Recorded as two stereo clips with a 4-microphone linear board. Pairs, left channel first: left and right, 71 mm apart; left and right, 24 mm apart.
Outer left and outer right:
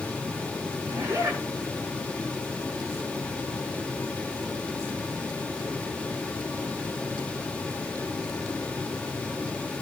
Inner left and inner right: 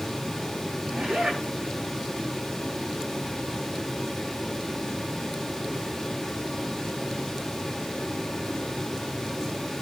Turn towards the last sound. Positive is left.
turn(degrees=-40)  # may be behind; listen again after turning